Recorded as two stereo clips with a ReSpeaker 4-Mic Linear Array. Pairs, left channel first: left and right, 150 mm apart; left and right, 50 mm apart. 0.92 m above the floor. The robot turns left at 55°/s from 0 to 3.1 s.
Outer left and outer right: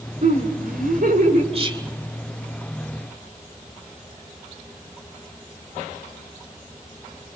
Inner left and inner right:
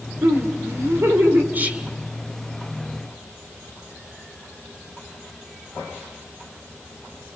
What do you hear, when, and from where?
0.2 s laughter: 55° right, 4 m; by 1.4 s 125° right, 4 m
1.5 s whispering: 45° right (ahead or behind), 2.5 m; by 1.9 s 25° right (ahead or behind), 2.5 m